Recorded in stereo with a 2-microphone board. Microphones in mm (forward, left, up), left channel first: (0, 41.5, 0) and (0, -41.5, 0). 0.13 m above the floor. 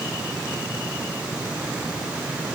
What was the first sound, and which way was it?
Only background noise.